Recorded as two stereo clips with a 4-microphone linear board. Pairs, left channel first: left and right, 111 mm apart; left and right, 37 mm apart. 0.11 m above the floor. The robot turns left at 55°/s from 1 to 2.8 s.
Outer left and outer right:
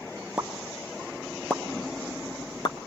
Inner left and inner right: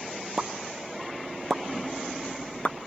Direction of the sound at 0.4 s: 10° right (ahead or behind).